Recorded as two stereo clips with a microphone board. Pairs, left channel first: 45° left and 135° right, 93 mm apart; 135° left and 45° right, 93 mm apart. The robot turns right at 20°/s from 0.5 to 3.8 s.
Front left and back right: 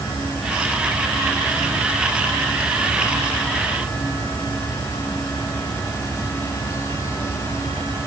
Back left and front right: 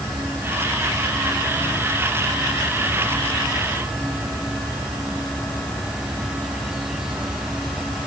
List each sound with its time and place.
Only background noise.